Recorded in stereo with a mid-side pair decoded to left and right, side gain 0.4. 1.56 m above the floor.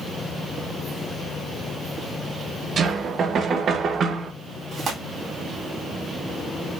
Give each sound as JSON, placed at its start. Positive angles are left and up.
{"t": 2.8, "sound": "knocking", "azimuth_deg": -60, "distance_m": 1.0}
{"t": 4.7, "sound": "tearing paper", "azimuth_deg": -60, "distance_m": 3.0}